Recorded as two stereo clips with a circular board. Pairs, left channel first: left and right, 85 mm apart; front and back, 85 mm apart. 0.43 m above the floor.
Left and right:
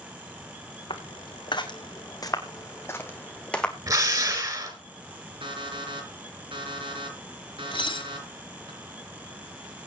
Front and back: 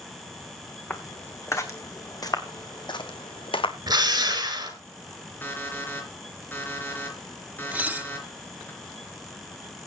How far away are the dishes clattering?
About 1.5 m.